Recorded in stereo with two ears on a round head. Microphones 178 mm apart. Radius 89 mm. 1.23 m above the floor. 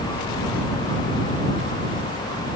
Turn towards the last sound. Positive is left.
No sound to turn to.